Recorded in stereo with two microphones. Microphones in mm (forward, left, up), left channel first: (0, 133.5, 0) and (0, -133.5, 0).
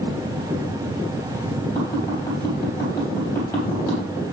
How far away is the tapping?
About 4.5 m.